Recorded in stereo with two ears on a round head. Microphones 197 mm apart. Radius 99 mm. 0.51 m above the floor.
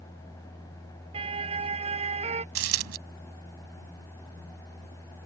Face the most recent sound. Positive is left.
turn(degrees=-65)  # may be behind; listen again after turning